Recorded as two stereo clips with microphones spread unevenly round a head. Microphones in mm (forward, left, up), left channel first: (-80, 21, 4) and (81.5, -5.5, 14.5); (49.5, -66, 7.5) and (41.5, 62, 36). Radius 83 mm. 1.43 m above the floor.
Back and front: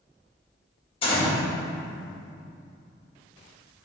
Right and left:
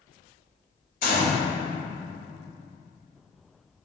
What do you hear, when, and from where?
1.0 s a gunshot: 130° right, 2 m